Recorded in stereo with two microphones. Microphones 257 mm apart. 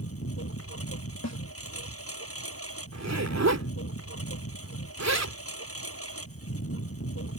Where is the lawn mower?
60° left (ahead or behind).